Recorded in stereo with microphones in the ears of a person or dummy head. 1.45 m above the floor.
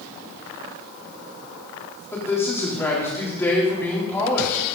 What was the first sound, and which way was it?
A man speaking, 10° left (ahead or behind).